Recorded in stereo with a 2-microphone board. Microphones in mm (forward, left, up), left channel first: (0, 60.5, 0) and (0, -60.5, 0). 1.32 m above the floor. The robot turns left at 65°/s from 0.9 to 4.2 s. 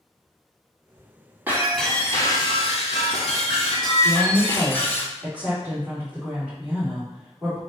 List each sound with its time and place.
1.5 s breaking glass: 165° right, 2 m; by 5.0 s 20° left, 2 m
4.0 s a woman speaking: 25° right (ahead or behind), 3.5 m; by 7.6 s 15° right (ahead or behind), 3.5 m